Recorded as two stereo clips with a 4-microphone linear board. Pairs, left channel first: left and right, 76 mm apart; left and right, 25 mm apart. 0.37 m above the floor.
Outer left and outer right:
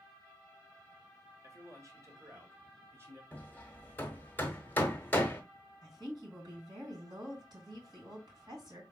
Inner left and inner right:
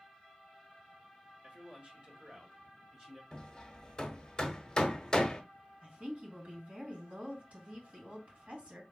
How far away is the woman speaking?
About 3 m.